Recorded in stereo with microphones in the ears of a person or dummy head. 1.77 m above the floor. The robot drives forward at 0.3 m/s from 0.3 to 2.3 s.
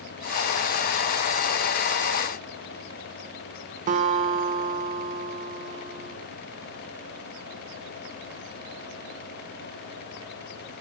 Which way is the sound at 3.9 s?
40° right (ahead or behind).